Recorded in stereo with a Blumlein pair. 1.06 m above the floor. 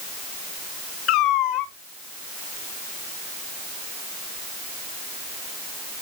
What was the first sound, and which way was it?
A cat meowing, 35° left.